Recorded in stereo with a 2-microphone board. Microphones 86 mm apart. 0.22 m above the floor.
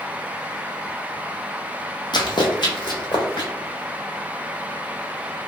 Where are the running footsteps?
55° left (ahead or behind), 0.6 m; by 3.5 s 60° left (ahead or behind), 1.6 m.